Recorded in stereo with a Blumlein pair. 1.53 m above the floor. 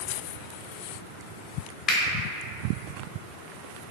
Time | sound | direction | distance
1.9 | a finger snap | 30° left | 0.5 m